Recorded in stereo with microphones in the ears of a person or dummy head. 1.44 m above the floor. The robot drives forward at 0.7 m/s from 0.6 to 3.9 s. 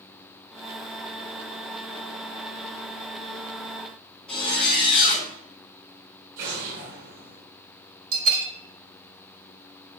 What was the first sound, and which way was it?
A zipper, 5° left (ahead or behind).